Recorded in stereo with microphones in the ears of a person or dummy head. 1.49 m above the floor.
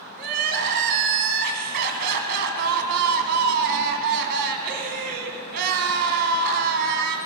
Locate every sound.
0.2 s crying: 55° right (ahead or behind), 1.7 m